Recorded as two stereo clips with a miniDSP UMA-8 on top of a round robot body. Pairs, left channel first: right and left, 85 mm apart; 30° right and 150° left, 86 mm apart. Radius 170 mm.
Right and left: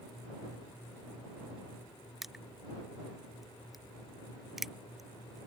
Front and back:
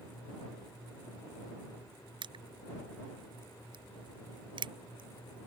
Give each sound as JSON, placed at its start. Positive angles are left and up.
{"t": 2.2, "sound": "crushing", "azimuth_deg": 180}